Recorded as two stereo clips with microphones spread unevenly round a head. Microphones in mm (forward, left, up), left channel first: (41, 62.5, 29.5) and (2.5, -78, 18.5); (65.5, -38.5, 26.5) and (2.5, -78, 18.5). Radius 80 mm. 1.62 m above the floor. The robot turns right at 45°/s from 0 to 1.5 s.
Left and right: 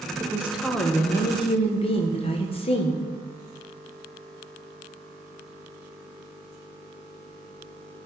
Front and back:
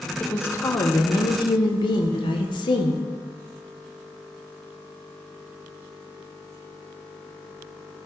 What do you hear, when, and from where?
0.2 s a woman speaking: 35° right, 1.3 m; by 3.0 s 25° left, 1.3 m